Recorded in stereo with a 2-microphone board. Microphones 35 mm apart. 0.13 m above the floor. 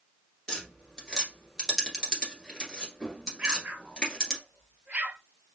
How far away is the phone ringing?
No phone ringing in this recording.